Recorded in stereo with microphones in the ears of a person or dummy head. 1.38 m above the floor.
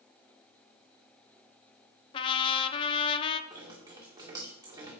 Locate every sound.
2.1 s a trumpet: 25° left (ahead or behind), 0.7 m
3.5 s dripping: 20° right (ahead or behind), 2.5 m